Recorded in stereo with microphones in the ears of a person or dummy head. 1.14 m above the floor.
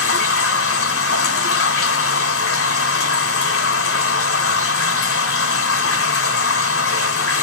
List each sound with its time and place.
0.0 s running water: 70° left (ahead or behind), 1.1 m